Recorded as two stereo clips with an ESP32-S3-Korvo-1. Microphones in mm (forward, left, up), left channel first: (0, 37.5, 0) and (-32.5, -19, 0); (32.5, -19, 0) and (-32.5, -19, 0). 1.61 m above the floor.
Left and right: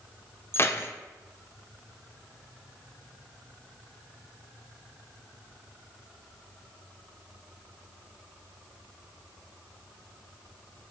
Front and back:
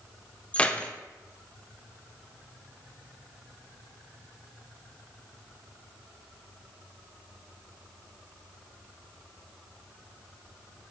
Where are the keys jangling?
60° left, 0.6 m.